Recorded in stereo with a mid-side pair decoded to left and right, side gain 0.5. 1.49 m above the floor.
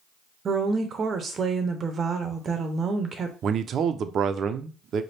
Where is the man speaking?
55° right, 0.6 m.